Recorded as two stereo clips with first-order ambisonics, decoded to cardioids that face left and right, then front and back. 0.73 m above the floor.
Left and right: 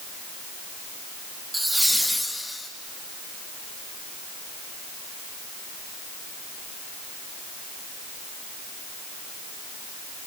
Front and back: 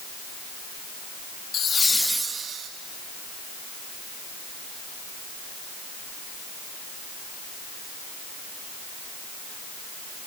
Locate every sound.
1.5 s laughter: 5° right, 0.7 m; by 2.7 s 170° left, 0.8 m